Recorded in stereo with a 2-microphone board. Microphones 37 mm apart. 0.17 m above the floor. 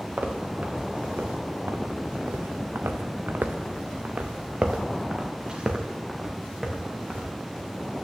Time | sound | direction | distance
0.2 | footsteps | 40° right (ahead or behind) | 1.9 m